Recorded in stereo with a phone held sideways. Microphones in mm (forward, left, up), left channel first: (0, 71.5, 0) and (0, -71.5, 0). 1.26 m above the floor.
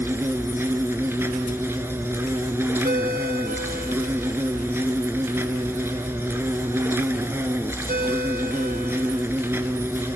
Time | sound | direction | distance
0.0 | an insect | 15° right (ahead or behind) | 1.3 m
2.8 | a ringtone | 85° right | 3.5 m